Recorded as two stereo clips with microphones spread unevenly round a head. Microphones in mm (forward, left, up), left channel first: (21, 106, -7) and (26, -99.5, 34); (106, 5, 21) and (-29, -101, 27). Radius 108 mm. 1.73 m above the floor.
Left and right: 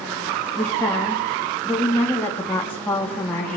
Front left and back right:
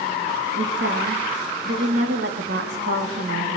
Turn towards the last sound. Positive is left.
turn(degrees=175)